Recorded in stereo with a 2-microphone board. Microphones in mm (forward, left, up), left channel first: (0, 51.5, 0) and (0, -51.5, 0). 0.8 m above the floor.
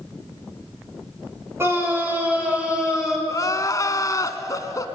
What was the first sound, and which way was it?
A scream, 25° right (ahead or behind).